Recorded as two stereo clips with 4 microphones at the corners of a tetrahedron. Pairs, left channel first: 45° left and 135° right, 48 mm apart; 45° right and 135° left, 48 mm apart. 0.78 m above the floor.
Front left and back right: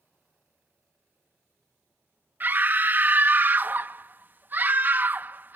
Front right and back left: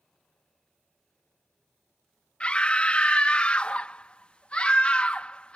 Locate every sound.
2.4 s a scream: 105° right